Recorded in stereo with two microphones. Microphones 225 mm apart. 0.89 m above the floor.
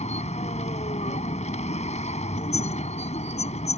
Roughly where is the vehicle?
Left.